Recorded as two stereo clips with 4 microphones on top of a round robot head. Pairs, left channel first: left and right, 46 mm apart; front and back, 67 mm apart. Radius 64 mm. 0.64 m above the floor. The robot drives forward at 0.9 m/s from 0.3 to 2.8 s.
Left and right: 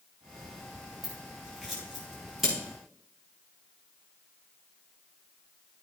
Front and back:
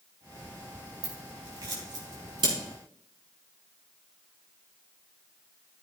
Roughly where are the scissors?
Behind.